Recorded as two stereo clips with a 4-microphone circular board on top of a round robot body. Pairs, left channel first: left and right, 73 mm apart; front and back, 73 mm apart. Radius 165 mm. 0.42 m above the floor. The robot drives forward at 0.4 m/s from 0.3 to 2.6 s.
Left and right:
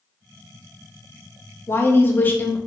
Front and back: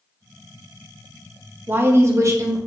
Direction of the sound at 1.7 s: 135° left.